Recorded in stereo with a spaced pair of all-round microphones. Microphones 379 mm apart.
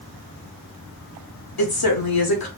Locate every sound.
1.6 s a woman speaking: 70° left (ahead or behind), 0.9 m